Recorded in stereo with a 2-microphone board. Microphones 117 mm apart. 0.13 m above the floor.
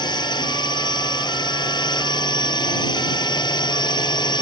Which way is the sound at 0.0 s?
40° left (ahead or behind).